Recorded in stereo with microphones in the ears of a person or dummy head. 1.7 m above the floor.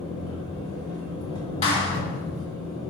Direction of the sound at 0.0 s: 20° left (ahead or behind).